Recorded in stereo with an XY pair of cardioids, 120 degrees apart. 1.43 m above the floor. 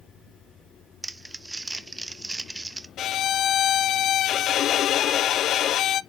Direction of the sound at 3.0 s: 60° left.